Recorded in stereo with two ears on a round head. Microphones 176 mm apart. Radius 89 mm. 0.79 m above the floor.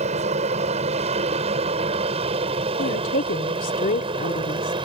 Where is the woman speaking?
45° left (ahead or behind).